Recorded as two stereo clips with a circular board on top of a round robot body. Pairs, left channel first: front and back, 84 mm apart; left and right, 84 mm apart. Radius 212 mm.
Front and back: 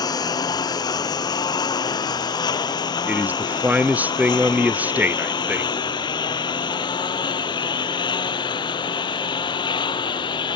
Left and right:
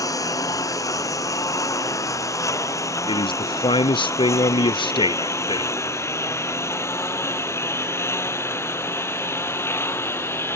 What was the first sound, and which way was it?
A lawn mower, 40° left.